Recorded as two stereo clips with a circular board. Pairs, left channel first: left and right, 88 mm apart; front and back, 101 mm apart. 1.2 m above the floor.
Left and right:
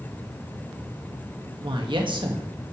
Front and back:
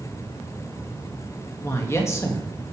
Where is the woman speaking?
65° right, 1.3 m.